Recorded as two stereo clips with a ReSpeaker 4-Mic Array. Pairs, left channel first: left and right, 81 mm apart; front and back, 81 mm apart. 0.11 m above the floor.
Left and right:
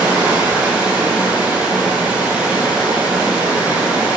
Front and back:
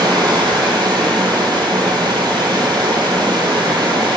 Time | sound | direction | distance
0.0 | running water | 165° right | 0.8 m